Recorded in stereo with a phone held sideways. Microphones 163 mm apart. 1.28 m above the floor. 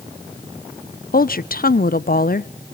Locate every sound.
1.1 s a woman speaking: 65° left (ahead or behind), 0.7 m